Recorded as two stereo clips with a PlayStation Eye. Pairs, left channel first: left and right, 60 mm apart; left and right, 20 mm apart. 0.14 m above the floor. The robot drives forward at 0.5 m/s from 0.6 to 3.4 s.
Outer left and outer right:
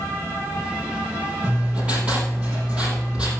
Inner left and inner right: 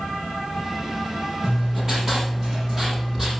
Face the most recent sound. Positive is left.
turn(degrees=-15)  # may be behind; listen again after turning